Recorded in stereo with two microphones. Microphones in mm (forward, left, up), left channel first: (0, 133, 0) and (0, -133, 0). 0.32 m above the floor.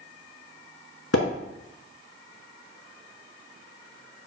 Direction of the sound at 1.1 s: 65° left (ahead or behind).